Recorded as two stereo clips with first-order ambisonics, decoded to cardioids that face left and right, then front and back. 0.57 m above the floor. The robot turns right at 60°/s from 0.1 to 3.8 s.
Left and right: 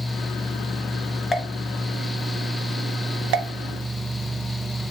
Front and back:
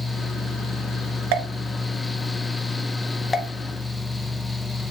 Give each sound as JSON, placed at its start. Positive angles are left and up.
{"t": 1.3, "sound": "a pop", "azimuth_deg": 165, "distance_m": 1.3}